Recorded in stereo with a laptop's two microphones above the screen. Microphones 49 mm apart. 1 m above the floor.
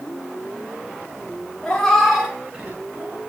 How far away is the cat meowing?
About 0.8 m.